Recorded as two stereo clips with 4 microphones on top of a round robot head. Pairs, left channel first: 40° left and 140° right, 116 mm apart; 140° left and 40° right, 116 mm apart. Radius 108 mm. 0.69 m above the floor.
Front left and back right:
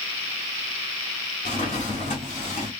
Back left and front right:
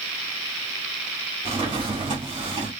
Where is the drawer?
10° left, 1.7 m.